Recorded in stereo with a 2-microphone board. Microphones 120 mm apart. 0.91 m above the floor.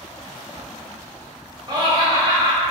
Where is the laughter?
35° right (ahead or behind), 0.8 m.